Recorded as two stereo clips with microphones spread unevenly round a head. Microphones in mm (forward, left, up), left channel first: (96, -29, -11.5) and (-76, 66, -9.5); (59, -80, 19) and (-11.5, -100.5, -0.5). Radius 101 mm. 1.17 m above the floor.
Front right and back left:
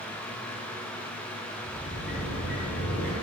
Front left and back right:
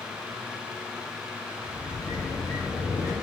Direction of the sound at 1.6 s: 15° right.